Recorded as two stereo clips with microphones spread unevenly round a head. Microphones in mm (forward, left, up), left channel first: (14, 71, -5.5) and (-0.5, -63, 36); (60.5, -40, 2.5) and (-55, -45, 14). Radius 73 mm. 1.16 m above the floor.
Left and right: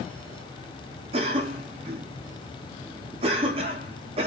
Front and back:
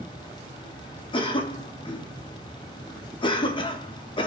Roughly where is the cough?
Ahead right.